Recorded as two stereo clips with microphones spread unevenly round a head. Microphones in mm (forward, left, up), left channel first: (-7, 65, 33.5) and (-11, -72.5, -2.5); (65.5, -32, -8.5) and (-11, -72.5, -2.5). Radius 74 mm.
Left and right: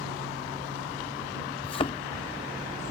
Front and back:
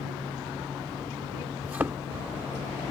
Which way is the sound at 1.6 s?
135° left.